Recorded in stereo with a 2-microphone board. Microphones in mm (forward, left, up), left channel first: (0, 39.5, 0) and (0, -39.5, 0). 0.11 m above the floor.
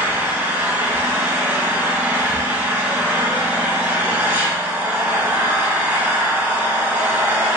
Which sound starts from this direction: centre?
An engine running, at 0.0 s.